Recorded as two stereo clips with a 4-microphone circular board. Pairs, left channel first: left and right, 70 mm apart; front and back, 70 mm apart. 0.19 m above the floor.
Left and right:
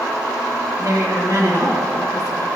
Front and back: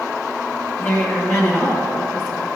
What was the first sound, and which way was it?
A woman speaking, 55° right.